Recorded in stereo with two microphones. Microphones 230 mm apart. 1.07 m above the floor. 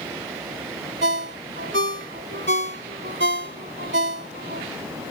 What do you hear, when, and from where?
1.0 s a ringtone: 55° right (ahead or behind)